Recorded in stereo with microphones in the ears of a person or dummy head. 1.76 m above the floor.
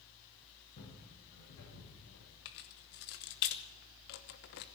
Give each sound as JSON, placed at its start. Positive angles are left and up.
{"t": 0.8, "sound": "footsteps", "side_deg": 50, "distance_m": 6.0}
{"t": 2.5, "sound": "keys jangling", "side_deg": 55, "distance_m": 1.1}